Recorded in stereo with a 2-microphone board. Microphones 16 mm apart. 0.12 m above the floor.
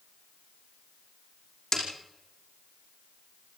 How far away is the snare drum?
About 5.5 m.